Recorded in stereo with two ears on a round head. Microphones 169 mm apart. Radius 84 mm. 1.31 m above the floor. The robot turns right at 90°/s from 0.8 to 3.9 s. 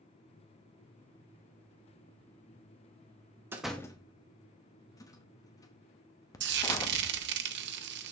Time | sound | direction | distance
3.5 | a door slam | 15° right (ahead or behind) | 0.9 m
6.4 | frying | 60° right (ahead or behind) | 0.9 m